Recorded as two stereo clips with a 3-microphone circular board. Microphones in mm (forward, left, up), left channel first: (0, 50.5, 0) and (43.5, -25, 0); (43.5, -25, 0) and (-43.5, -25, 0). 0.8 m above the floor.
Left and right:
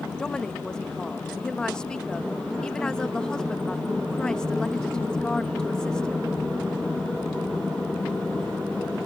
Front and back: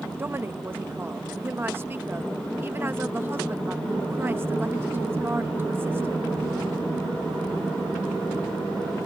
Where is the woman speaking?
170° right.